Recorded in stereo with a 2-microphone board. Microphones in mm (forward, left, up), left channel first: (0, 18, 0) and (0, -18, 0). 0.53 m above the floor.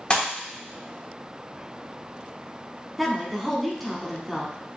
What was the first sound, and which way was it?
A pop, 30° left (ahead or behind).